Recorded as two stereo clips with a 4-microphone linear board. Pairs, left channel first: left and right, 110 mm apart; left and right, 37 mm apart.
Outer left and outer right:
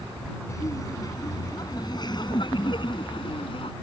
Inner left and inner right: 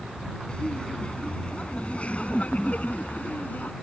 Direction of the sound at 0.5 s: 30° left (ahead or behind).